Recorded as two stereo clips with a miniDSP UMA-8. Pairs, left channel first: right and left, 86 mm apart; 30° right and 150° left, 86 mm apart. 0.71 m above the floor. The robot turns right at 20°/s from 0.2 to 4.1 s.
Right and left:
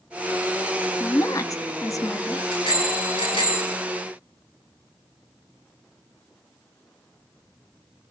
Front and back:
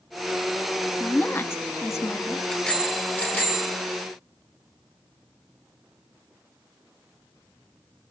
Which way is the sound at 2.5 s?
115° right.